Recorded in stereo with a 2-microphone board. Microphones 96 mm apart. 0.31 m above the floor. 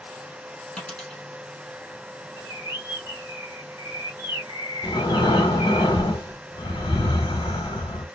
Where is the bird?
45° left (ahead or behind), 1.7 m.